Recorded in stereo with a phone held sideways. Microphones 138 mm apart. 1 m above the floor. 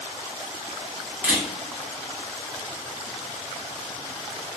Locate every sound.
1.2 s a camera shutter: 10° right (ahead or behind), 2 m